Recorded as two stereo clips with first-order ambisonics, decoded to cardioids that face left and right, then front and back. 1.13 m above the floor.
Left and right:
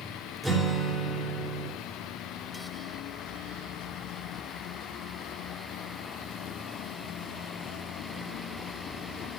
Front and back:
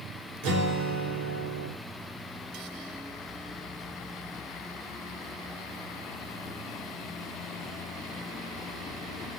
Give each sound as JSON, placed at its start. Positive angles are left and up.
{"t": 0.4, "sound": "a guitar", "azimuth_deg": -175, "distance_m": 4.0}